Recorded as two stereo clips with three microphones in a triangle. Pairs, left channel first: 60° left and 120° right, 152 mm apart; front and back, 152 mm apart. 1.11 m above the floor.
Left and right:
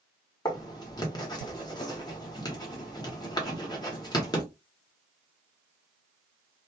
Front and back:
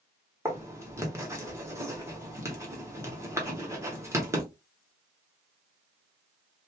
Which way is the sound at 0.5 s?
115° left.